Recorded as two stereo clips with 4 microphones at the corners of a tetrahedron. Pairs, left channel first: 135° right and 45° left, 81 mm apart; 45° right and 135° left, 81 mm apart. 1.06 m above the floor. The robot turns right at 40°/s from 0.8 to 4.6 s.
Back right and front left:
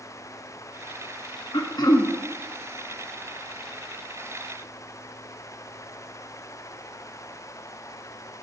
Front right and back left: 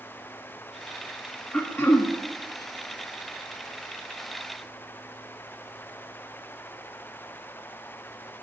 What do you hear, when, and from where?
1.5 s throat clearing: 115° right, 1.5 m; by 2.1 s 90° right, 1.5 m